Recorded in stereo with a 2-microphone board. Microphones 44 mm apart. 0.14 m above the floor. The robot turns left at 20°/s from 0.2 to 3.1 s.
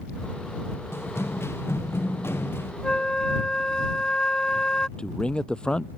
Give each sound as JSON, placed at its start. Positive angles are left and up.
{"t": 0.9, "sound": "running footsteps", "side_deg": 80}
{"t": 2.8, "sound": "a flute", "side_deg": 20}
{"t": 5.0, "sound": "a man speaking", "side_deg": 25}